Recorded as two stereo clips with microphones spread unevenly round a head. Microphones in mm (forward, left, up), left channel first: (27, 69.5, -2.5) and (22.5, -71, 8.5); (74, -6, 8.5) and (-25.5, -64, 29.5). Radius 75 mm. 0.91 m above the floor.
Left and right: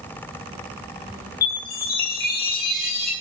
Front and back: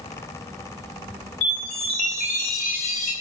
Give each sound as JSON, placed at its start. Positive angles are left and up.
{"t": 1.4, "sound": "a chime", "azimuth_deg": 75, "distance_m": 6.0}